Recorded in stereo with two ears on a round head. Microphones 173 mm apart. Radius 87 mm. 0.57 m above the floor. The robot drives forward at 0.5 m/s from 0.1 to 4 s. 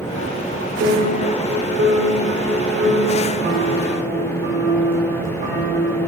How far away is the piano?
About 1.6 m.